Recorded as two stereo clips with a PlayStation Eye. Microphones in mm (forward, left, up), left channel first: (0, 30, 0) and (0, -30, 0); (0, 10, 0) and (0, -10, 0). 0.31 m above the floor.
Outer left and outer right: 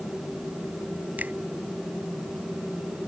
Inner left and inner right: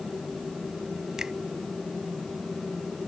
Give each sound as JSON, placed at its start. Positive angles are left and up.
{"t": 1.2, "sound": "a finger snap", "side_deg": -30}